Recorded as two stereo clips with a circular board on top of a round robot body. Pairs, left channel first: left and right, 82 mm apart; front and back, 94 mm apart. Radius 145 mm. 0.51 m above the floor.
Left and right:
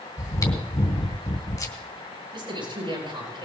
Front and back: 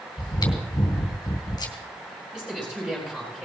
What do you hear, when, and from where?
0.2 s chewing: 45° left, 3 m
2.3 s a man speaking: 95° right, 10 m